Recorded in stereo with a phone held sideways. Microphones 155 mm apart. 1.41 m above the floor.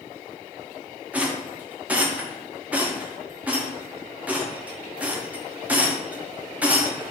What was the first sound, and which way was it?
A rattle, 10° right (ahead or behind).